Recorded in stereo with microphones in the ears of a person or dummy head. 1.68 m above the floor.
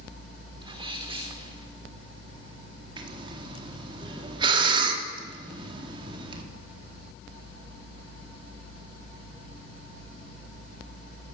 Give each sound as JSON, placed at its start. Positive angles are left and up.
{"t": 0.6, "sound": "a sneeze", "side_deg": -30, "distance_m": 4.0}
{"t": 3.0, "sound": "breathing", "side_deg": -30, "distance_m": 4.0}